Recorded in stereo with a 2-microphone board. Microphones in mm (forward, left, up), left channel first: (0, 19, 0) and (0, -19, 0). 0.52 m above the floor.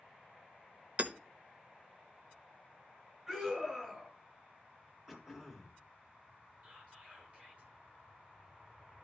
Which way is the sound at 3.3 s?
20° right (ahead or behind).